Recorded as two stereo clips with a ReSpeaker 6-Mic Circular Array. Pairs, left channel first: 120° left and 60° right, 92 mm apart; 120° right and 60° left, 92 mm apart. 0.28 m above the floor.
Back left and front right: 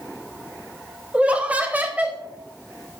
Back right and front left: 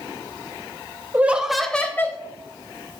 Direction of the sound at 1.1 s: 5° left.